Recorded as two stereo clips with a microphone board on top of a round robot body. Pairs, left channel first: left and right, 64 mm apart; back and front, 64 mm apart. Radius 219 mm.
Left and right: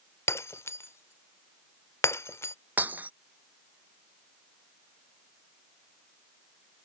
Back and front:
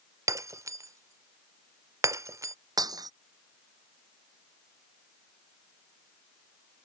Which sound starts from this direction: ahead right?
Breaking glass, at 2.8 s.